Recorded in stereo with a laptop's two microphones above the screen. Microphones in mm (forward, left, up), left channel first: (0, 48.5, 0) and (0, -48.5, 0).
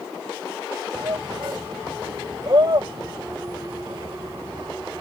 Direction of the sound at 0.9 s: 45° right (ahead or behind).